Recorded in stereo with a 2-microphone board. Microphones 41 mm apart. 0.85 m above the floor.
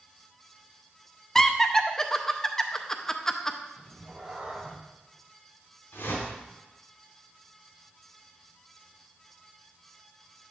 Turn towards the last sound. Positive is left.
turn(degrees=75)  # may be behind; listen again after turning